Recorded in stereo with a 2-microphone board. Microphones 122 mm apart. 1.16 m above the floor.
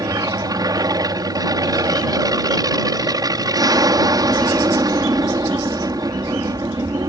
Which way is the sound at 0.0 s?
30° right (ahead or behind).